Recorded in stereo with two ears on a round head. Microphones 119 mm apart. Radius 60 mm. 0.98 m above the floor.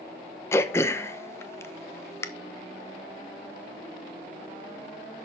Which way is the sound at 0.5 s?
20° left (ahead or behind).